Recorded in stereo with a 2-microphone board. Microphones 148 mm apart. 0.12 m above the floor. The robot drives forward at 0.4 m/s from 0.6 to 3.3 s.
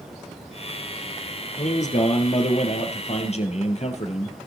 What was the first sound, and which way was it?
A man speaking, 55° left (ahead or behind).